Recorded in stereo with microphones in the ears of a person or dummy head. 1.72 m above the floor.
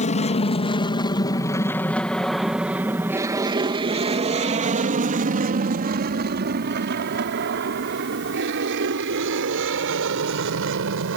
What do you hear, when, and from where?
0.0 s an aircraft: 30° left (ahead or behind); by 11.2 s 75° right (ahead or behind)